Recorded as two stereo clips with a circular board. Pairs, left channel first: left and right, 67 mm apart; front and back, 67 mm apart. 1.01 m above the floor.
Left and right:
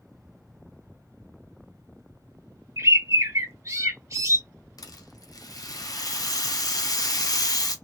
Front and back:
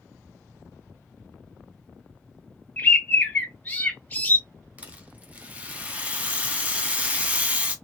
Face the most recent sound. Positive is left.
turn(degrees=110)